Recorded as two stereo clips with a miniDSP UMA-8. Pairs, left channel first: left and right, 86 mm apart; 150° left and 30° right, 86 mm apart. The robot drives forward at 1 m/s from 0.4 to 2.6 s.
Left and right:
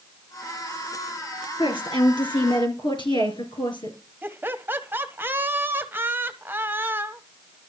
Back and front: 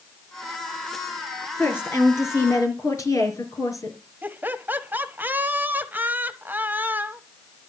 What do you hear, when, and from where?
1.6 s a woman speaking: 85° left, 3.5 m; by 4.0 s 105° left, 3.5 m
4.2 s laughter: 65° right, 1.0 m